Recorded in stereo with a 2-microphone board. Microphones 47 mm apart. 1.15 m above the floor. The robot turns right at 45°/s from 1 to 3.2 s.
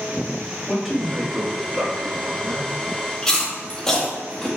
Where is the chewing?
15° left (ahead or behind), 1.9 m.